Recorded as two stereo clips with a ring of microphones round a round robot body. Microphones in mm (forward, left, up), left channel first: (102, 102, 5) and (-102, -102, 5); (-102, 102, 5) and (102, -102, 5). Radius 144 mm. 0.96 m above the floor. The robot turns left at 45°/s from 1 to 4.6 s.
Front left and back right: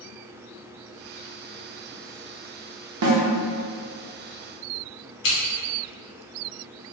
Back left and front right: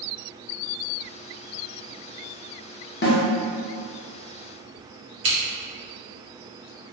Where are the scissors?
Straight ahead, 1.0 m.